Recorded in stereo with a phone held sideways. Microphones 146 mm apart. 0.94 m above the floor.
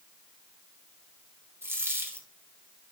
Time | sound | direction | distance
1.6 | a dropped coin | 15° right (ahead or behind) | 1.9 m